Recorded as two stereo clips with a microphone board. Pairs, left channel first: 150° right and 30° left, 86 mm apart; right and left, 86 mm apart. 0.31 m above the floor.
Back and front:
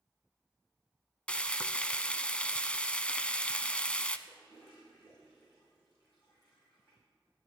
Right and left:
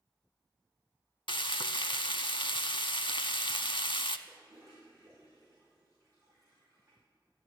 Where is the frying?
75° right, 0.5 m.